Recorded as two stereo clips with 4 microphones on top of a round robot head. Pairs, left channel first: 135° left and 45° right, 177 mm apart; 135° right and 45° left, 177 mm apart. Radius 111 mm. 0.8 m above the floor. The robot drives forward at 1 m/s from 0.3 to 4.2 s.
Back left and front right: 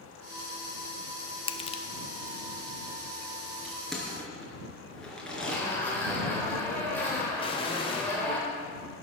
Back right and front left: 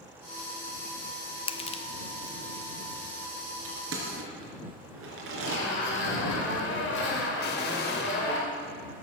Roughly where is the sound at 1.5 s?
Behind.